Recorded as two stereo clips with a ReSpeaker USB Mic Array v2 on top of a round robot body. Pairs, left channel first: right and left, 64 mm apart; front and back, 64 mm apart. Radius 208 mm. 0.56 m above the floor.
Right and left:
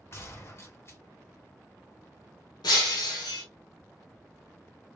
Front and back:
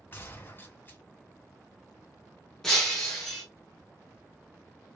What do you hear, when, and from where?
0.1 s a gunshot: 50° right, 2.0 m
2.6 s breaking glass: 80° right, 1.0 m